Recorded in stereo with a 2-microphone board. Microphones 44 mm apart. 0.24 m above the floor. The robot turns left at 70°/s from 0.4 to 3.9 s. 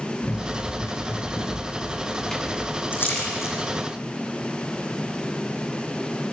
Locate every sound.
0.2 s running footsteps: 35° left (ahead or behind), 5 m; by 2.8 s 25° right (ahead or behind), 2.5 m
2.9 s a splash: 40° left (ahead or behind), 5.5 m; by 3.6 s 85° left, 5.5 m